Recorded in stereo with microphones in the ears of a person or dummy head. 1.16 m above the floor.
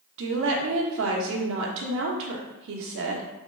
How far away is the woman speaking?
About 0.9 m.